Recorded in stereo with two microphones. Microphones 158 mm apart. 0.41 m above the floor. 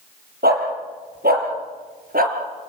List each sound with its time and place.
0.4 s a dog barking: 85° right, 5.5 m; by 2.4 s 65° right (ahead or behind), 3.5 m